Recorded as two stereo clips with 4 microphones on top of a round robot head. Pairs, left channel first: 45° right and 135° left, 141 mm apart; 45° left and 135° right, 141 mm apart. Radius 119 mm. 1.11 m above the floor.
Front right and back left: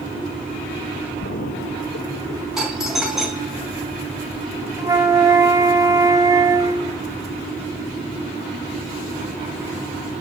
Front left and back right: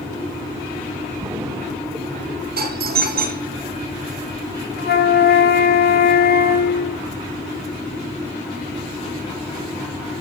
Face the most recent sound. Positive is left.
turn(degrees=65)